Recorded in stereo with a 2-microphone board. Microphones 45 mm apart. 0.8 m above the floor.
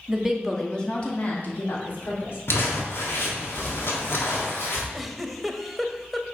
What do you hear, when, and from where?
0.1 s a woman speaking: 15° right (ahead or behind), 1.4 m; by 2.4 s 60° left (ahead or behind), 2.5 m
2.5 s crumpling: 60° left (ahead or behind), 1.6 m
4.9 s a giggle: centre (ahead or behind), 0.6 m